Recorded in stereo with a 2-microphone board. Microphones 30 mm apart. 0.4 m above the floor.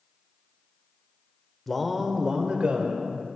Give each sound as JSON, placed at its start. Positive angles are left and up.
{"t": 1.7, "sound": "a man speaking", "side_deg": 10, "distance_m": 0.9}